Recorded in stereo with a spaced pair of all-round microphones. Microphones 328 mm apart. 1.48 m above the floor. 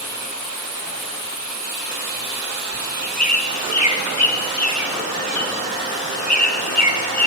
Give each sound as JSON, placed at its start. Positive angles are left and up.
{"t": 2.7, "sound": "a bird", "side_deg": 55, "distance_m": 1.5}